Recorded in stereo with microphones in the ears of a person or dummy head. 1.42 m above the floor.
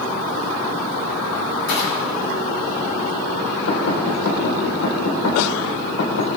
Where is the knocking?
90° left, 5 m.